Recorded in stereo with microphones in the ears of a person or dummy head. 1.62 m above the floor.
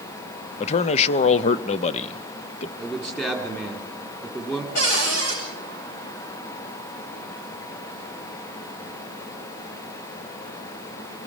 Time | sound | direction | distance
0.6 | a man speaking | 35° left (ahead or behind) | 0.6 m
2.8 | a man speaking | 5° left (ahead or behind) | 3.5 m
4.8 | a cupboard door | 45° left (ahead or behind) | 8.5 m